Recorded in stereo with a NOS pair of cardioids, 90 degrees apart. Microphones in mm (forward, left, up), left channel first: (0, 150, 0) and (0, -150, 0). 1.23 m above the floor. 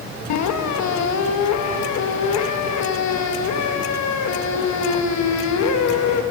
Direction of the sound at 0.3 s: 65° left.